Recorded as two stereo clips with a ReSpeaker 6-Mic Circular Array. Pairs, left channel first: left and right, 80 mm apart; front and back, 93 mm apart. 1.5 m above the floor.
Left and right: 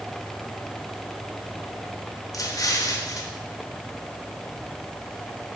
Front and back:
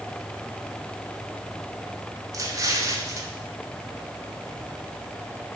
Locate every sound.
2.3 s an explosion: 130° left, 0.9 m